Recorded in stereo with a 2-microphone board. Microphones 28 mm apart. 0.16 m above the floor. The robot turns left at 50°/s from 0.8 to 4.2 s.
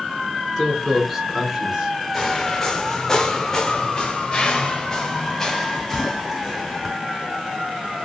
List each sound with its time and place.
0.6 s a man speaking: 10° left (ahead or behind), 2 m; by 2.0 s 30° right (ahead or behind), 2 m
2.1 s footsteps: 15° left (ahead or behind), 0.8 m; by 7.0 s centre (ahead or behind), 2 m